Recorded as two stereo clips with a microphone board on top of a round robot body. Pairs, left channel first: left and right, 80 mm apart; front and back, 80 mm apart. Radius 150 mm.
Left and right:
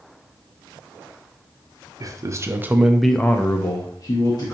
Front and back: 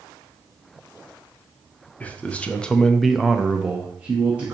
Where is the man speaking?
65° right, 0.9 m; by 4.5 s 110° left, 1.2 m.